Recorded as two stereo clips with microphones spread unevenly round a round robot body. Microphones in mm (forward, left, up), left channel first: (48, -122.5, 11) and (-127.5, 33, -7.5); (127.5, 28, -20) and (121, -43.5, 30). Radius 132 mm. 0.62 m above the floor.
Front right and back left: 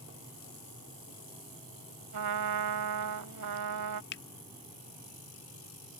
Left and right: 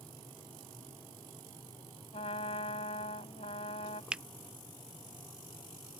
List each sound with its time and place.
2.1 s a trumpet: 135° left
4.1 s a finger snap: 5° left